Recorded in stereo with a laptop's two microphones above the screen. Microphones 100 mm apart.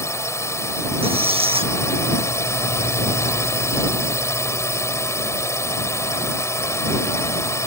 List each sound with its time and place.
0.0 s a drone: 25° left (ahead or behind)
1.0 s a squeak: 70° right (ahead or behind)